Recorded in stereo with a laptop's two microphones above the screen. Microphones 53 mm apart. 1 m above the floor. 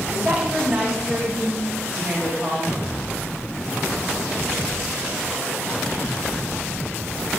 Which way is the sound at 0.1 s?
15° right (ahead or behind).